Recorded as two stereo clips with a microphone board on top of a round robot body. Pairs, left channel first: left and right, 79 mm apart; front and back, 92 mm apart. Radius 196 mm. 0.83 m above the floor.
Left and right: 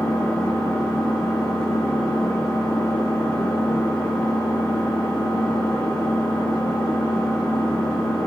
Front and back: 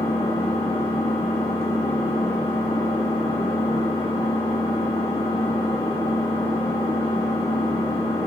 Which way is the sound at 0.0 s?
10° left.